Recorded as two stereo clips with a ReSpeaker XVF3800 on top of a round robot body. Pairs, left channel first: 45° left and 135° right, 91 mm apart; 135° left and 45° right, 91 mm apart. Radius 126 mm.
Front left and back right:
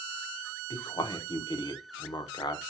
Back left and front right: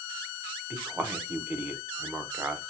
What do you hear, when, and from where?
0.7 s a man speaking: 25° left, 1.2 m